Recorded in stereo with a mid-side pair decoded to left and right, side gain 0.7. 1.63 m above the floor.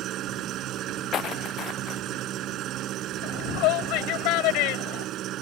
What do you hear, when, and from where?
0.0 s an engine running: 50° right
1.1 s footsteps: 45° left
3.2 s a shout: 65° left